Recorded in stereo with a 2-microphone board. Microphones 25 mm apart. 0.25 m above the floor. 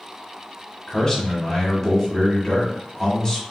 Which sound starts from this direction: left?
A man speaking, at 0.9 s.